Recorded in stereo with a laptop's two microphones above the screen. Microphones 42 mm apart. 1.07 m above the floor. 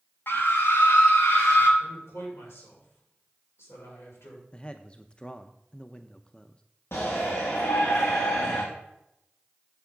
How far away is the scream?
About 1.1 m.